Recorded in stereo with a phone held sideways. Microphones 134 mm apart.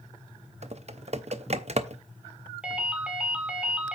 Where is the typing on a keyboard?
55° right (ahead or behind), 0.6 m.